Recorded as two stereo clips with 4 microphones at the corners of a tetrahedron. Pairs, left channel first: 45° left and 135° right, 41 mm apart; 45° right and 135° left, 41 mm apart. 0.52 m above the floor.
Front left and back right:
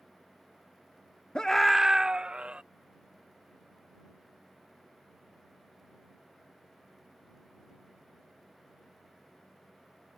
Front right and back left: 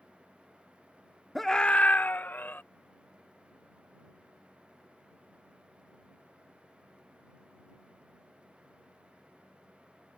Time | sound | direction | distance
1.4 | a scream | 45° left | ?